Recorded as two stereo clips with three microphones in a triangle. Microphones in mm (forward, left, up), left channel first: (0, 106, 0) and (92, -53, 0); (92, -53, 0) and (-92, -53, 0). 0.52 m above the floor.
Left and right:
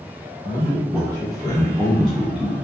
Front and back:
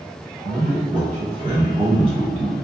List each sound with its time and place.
0.4 s a man speaking: 175° left, 1.7 m; by 2.5 s 10° left, 1.1 m